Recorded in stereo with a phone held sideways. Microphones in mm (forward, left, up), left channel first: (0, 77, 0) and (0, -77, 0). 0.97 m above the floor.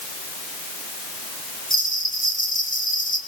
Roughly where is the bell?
Left.